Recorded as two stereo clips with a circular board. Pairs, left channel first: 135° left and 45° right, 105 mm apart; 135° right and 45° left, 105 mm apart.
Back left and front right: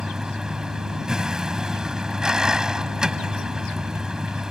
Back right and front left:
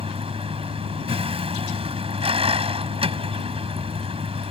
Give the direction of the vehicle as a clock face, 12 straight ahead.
11 o'clock.